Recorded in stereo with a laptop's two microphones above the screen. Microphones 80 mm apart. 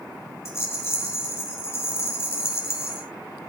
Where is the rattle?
35° left (ahead or behind), 2.5 m.